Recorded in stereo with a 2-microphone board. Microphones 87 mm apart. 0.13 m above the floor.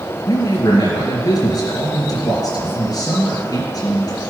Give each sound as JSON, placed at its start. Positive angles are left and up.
{"t": 0.3, "sound": "a man speaking", "side_deg": 40, "distance_m": 2.5}